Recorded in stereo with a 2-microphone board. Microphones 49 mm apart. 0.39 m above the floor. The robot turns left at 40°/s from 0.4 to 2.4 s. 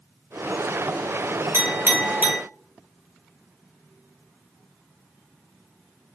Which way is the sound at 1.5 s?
45° right (ahead or behind).